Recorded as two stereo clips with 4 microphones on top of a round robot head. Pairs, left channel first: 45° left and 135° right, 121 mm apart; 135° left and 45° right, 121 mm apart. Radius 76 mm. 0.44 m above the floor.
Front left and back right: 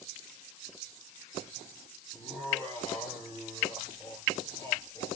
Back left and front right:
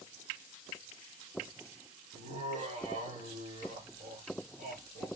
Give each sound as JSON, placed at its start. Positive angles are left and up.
{"t": 2.1, "sound": "laughter", "azimuth_deg": -25, "distance_m": 4.5}